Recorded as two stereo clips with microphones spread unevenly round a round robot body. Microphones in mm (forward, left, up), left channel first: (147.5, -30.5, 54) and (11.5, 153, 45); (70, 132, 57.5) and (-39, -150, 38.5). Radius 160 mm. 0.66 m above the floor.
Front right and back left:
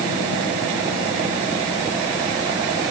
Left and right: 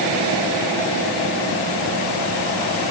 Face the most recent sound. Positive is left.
No sound to turn to.